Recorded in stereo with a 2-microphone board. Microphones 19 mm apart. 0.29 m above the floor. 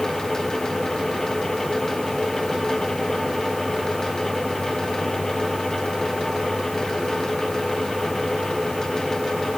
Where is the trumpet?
I don't hear a trumpet.